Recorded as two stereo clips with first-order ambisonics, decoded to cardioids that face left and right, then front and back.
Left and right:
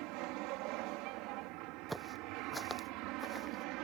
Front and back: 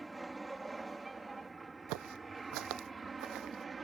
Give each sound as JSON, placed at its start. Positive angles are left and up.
{"t": 0.0, "sound": "an aircraft", "azimuth_deg": -100}
{"t": 1.9, "sound": "footsteps", "azimuth_deg": -175}